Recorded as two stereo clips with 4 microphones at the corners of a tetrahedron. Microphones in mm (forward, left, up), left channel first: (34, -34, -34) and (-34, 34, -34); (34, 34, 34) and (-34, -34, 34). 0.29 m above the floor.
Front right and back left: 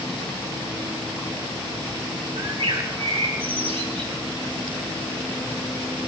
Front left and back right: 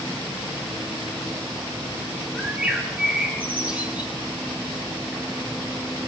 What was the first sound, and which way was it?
A bird, 150° left.